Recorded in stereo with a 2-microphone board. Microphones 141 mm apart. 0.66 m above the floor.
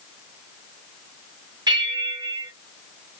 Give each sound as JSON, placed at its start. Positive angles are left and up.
{"t": 1.7, "sound": "a bell", "side_deg": -30, "distance_m": 1.3}